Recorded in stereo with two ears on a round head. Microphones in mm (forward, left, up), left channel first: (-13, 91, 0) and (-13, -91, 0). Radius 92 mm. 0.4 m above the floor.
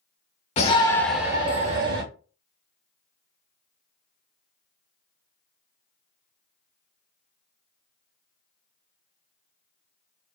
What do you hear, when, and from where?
0.6 s a shout: 35° left (ahead or behind), 1.0 m; by 2.0 s 50° right (ahead or behind), 1.1 m